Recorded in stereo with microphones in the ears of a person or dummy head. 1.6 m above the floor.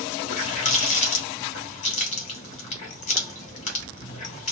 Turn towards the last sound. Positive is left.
turn(degrees=40)  # may be behind; listen again after turning